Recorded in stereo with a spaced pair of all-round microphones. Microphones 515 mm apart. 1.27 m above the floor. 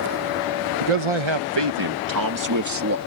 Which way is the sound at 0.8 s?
75° right (ahead or behind).